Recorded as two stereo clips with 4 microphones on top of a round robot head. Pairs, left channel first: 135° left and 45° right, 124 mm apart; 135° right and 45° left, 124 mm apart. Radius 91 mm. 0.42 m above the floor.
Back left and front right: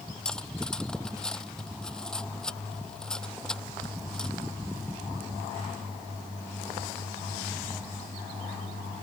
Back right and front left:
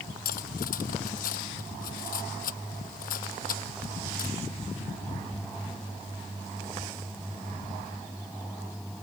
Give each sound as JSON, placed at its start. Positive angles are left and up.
{"t": 0.2, "sound": "cutlery clinking", "azimuth_deg": -140}